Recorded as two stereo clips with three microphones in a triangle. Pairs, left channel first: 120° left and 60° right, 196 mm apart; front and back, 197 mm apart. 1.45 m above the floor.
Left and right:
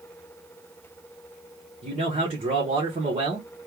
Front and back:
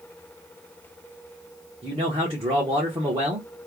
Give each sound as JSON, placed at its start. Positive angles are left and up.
{"t": 1.8, "sound": "a man speaking", "azimuth_deg": -115, "distance_m": 1.3}